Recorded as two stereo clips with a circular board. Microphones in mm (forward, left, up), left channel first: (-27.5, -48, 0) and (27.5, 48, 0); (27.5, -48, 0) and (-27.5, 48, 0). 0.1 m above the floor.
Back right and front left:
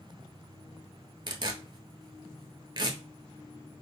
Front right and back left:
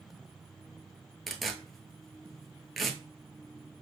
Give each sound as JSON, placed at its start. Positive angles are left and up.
{"t": 1.3, "sound": "tearing paper", "azimuth_deg": 30, "distance_m": 0.6}